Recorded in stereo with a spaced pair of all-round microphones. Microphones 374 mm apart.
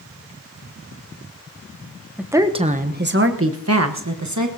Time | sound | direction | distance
2.2 | a woman speaking | 5° right (ahead or behind) | 0.9 m